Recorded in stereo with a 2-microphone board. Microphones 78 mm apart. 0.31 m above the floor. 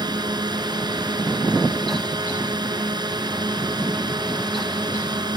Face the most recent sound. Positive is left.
turn(degrees=-65)  # may be behind; listen again after turning